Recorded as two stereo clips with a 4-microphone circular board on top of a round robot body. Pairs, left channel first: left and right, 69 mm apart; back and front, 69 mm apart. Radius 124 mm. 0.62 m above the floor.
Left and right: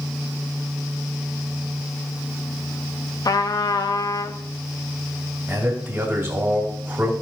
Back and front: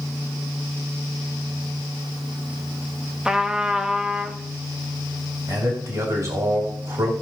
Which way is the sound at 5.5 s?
30° right.